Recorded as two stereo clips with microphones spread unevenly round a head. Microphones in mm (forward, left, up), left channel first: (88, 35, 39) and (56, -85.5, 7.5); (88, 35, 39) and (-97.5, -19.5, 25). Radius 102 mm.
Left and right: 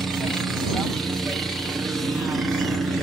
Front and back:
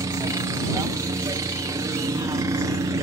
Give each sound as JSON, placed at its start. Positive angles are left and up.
{"t": 0.0, "sound": "a helicopter", "azimuth_deg": -155}